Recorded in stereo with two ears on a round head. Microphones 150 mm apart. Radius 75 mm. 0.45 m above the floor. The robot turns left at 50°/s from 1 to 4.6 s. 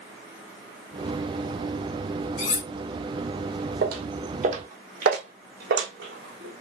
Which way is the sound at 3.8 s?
60° right (ahead or behind).